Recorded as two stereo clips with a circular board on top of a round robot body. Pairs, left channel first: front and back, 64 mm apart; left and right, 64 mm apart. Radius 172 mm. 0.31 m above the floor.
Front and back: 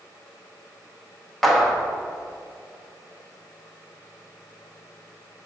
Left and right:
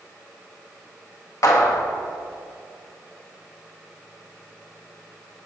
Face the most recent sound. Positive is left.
turn(degrees=85)